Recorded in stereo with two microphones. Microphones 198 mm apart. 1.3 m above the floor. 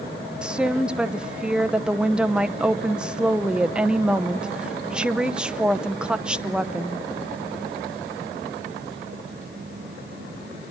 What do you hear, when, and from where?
0.4 s a woman speaking: 5° right (ahead or behind), 0.8 m